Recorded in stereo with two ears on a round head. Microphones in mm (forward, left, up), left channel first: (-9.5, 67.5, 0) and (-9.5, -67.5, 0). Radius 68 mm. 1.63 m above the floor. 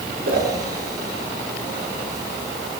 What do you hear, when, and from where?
0.2 s a whoosh: 70° right (ahead or behind), 6.5 m